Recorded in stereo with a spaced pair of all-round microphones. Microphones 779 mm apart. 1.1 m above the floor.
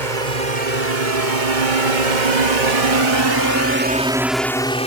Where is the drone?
65° right (ahead or behind); by 4.9 s 10° left (ahead or behind).